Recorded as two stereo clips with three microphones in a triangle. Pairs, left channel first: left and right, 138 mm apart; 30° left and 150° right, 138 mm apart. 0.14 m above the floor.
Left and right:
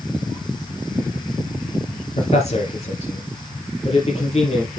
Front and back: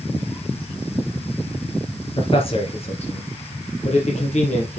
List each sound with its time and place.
2.2 s a man speaking: 70° left, 2.5 m; by 4.8 s 55° left, 4.5 m